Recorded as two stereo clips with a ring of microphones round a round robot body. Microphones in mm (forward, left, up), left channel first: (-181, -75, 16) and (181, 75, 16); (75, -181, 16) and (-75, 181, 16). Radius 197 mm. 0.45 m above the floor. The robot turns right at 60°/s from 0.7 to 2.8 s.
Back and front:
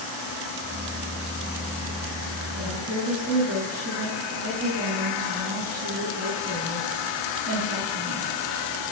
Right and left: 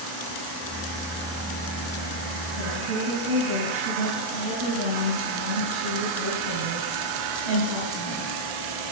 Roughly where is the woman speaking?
Ahead left.